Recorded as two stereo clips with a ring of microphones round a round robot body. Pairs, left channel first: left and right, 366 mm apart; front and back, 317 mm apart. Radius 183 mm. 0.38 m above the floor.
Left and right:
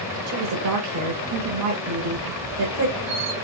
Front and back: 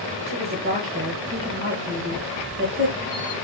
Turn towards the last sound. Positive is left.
turn(degrees=-100)